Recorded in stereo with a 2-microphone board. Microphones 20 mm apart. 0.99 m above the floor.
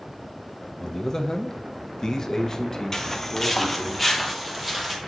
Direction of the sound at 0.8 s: 25° left (ahead or behind).